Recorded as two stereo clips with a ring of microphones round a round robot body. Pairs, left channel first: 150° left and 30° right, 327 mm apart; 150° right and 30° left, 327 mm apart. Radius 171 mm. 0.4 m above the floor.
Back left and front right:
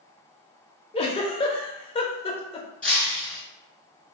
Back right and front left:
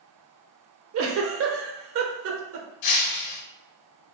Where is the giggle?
75° left, 0.6 m.